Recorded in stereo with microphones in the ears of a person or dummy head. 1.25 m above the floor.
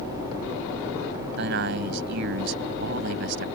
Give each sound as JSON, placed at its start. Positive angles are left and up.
{"t": 1.4, "sound": "a man speaking", "side_deg": -65}